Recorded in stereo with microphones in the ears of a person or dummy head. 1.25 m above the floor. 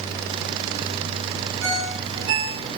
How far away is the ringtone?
About 5.5 m.